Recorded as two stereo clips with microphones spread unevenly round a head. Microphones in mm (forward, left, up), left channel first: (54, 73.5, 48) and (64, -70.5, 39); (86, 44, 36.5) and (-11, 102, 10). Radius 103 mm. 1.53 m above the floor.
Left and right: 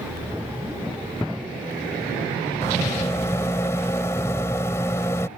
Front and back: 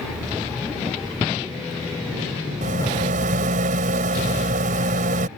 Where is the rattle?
170° left.